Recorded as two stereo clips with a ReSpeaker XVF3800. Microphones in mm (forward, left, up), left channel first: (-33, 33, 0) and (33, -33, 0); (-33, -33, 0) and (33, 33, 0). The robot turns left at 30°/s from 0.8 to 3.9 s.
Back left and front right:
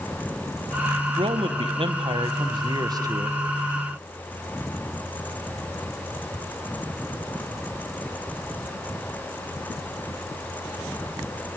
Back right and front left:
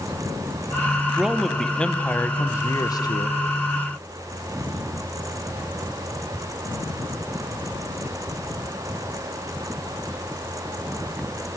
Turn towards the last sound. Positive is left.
turn(degrees=-120)